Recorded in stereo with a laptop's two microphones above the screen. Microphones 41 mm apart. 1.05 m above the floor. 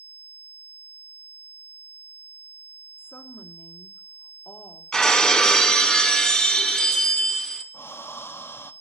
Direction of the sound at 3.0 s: 55° left (ahead or behind).